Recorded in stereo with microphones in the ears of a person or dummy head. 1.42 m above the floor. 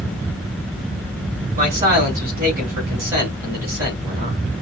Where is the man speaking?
45° right (ahead or behind), 3 m.